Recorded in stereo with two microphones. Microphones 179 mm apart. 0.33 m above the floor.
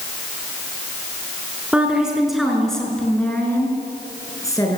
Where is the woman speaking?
5° right (ahead or behind), 5.5 m; by 4.8 s 20° left (ahead or behind), 6 m.